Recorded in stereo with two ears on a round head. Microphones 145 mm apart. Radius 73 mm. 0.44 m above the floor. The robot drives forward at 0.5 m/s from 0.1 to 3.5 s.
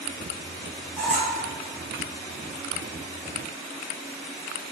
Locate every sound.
1.0 s a squeak: 5° left (ahead or behind), 0.8 m